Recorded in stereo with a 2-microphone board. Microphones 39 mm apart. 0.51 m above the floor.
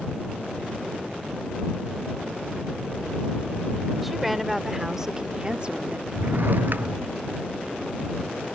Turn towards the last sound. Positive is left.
turn(degrees=-55)  # may be behind; listen again after turning